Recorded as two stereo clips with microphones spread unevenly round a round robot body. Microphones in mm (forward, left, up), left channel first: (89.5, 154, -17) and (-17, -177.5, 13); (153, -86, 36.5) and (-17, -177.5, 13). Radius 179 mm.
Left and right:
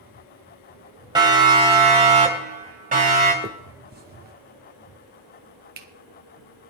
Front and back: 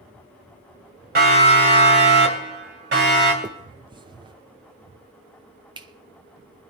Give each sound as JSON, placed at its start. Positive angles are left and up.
{"t": 1.1, "sound": "a siren", "azimuth_deg": 175, "distance_m": 3.5}
{"t": 3.4, "sound": "a finger snap", "azimuth_deg": -155, "distance_m": 1.0}